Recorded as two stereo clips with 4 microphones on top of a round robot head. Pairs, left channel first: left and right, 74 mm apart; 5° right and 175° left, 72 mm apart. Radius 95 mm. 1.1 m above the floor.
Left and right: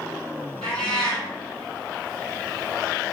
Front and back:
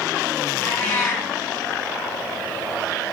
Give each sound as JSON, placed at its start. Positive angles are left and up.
{"t": 0.6, "sound": "a cat meowing", "azimuth_deg": 50, "distance_m": 1.6}